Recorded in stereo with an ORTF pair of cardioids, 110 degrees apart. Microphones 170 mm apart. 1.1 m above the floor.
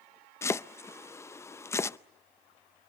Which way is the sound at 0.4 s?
15° left.